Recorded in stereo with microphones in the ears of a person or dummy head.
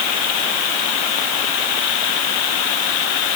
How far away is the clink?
No clink in this recording.